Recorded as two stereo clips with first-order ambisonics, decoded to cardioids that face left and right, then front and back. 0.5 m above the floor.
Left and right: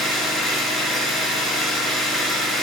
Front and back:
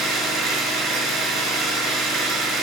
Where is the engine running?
155° left, 6.5 m.